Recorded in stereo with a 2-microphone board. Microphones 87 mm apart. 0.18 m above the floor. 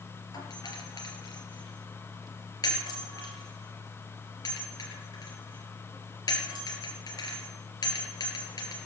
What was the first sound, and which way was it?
A doorbell, 45° left (ahead or behind).